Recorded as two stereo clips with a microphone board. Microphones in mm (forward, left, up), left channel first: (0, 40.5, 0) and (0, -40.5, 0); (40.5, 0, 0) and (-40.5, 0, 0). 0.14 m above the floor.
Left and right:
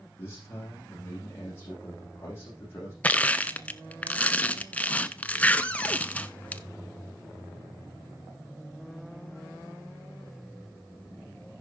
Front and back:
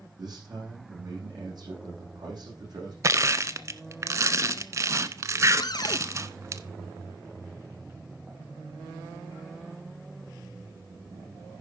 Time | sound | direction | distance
0.2 | a man speaking | 150° left | 7.5 m
3.0 | crushing | 155° left | 0.5 m
5.6 | a cupboard door | 20° left | 0.7 m